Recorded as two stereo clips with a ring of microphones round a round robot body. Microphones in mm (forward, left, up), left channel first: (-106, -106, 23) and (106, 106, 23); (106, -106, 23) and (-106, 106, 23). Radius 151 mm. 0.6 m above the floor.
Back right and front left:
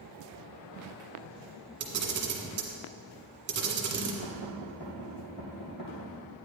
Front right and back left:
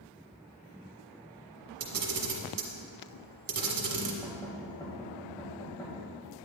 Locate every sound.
1.8 s a camera shutter: 95° left, 1.5 m
4.2 s knocking: 125° right, 2.5 m